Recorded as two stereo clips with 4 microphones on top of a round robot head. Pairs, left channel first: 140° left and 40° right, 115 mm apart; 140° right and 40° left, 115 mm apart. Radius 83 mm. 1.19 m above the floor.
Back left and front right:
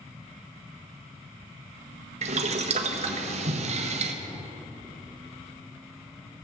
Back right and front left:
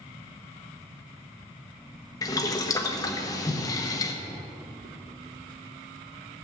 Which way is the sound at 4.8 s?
55° left.